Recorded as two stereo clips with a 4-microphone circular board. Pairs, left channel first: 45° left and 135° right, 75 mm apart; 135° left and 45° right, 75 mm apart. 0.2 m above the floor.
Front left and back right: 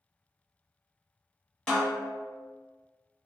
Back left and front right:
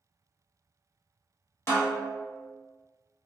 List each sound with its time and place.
1.7 s a snare drum: 120° left, 1.1 m